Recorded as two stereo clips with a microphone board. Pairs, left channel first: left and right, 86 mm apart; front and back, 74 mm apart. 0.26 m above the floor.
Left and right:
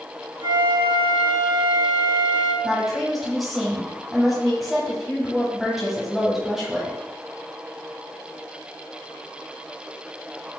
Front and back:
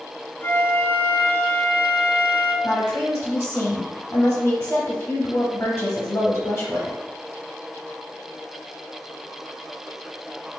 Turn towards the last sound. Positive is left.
turn(degrees=0)